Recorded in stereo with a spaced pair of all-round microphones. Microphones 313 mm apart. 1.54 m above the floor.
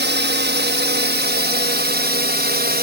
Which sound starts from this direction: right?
A drone, at 0.0 s.